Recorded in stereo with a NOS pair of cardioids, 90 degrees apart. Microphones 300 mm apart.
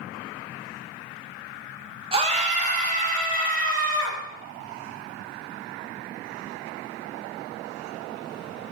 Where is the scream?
20° right, 0.7 m; by 4.2 s 30° right, 2.5 m.